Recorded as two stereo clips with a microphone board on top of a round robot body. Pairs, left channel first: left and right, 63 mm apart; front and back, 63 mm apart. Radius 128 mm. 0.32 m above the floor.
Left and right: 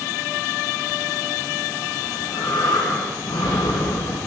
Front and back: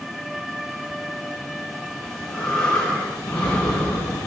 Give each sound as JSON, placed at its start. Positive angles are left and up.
{"t": 2.0, "sound": "breathing", "azimuth_deg": 75, "distance_m": 4.0}